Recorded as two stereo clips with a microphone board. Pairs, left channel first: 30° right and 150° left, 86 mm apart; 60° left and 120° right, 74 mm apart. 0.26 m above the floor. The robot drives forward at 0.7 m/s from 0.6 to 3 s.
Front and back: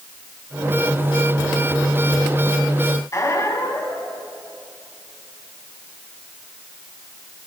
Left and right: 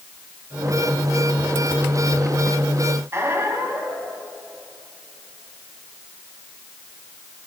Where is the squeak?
75° right, 1.1 m.